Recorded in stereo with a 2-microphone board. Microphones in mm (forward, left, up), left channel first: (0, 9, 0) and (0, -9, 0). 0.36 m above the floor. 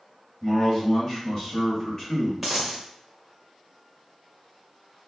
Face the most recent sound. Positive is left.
turn(degrees=0)  # may be behind; listen again after turning